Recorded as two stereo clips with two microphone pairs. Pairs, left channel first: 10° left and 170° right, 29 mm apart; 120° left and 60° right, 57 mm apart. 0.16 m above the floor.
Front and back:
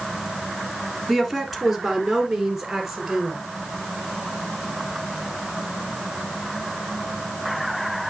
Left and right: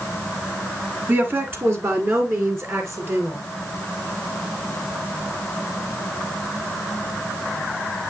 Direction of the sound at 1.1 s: 75° right.